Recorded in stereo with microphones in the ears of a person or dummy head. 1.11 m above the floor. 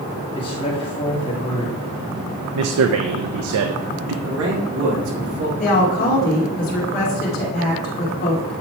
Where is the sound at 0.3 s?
25° left (ahead or behind), 2.0 m.